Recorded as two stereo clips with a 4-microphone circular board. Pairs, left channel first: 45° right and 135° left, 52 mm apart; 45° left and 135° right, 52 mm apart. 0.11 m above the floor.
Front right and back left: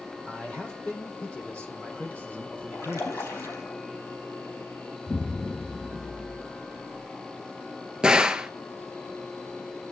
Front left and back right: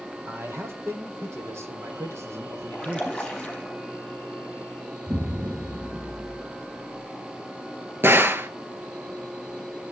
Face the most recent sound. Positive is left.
turn(degrees=-155)